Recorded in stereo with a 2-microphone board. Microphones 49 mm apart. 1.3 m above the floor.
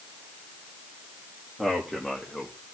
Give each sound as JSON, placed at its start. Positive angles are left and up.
{"t": 1.6, "sound": "a man speaking", "side_deg": 10, "distance_m": 2.5}